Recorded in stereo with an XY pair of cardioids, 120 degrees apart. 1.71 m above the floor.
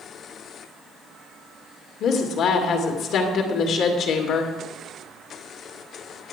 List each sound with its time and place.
2.0 s a woman speaking: 65° left, 2.5 m